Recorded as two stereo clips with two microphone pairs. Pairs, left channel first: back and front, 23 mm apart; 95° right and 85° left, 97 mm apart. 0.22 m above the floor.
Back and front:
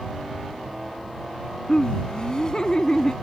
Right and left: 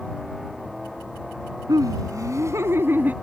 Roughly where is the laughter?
Behind left.